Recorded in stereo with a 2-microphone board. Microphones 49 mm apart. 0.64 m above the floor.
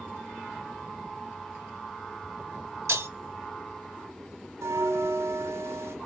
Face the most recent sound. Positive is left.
turn(degrees=-70)  # may be behind; listen again after turning